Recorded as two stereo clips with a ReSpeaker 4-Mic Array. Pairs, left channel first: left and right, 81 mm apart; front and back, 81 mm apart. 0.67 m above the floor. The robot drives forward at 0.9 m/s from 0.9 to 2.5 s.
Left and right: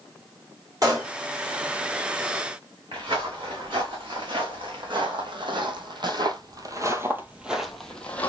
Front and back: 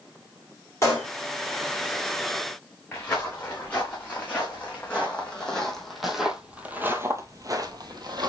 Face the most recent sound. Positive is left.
turn(degrees=160)